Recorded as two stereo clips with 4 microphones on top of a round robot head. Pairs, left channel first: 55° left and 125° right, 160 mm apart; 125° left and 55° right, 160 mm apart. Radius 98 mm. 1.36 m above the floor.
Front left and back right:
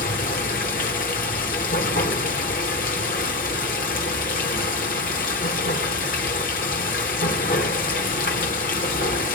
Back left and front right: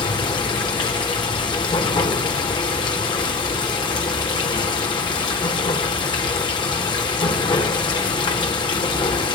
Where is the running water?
70° left, 1.2 m.